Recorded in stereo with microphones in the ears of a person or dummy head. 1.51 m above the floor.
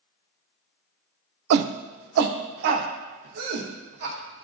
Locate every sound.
1.5 s a shout: 55° right (ahead or behind), 0.5 m; by 4.4 s 65° right (ahead or behind), 2.5 m